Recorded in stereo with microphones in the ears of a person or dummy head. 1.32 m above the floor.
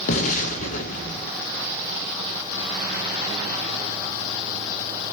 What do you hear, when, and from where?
0.1 s an explosion: 45° left (ahead or behind), 2.5 m